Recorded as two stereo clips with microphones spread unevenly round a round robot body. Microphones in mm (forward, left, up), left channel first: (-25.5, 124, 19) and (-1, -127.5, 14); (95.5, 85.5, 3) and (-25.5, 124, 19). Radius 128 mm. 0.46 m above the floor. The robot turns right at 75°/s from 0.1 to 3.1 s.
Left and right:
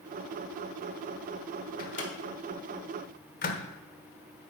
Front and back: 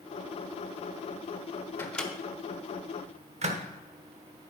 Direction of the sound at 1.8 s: 45° left.